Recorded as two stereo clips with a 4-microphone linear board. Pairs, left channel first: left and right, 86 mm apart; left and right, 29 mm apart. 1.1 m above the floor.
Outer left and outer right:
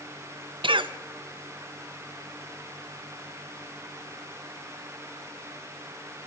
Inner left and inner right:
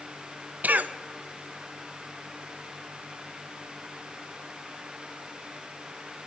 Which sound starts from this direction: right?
A cough, at 0.6 s.